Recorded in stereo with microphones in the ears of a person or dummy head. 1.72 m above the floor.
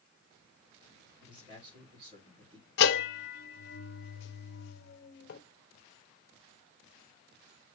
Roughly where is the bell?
Left.